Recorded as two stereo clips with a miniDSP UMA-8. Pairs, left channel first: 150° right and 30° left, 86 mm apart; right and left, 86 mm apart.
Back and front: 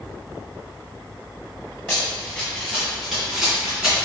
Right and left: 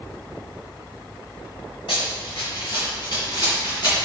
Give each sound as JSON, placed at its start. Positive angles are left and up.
{"t": 1.9, "sound": "running footsteps", "azimuth_deg": -75, "distance_m": 1.4}